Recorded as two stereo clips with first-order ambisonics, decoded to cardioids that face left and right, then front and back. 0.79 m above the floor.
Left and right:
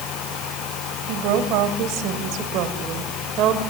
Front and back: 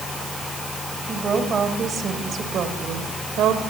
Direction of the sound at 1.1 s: 110° right.